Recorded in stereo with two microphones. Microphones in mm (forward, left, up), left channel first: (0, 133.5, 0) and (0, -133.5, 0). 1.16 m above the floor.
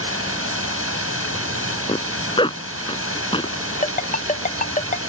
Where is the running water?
60° right (ahead or behind).